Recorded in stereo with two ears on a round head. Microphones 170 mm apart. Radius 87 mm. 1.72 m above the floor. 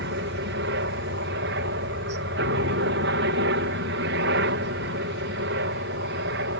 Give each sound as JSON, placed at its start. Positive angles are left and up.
{"t": 0.0, "sound": "a helicopter", "side_deg": -60}